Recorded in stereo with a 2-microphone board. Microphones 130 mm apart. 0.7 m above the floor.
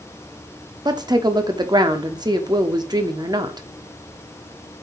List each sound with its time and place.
0.8 s a woman speaking: 30° right (ahead or behind), 1.1 m